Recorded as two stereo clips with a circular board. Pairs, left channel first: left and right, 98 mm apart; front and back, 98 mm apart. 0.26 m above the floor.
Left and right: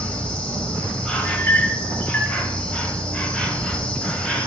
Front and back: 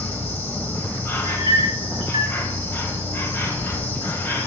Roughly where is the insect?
Ahead left.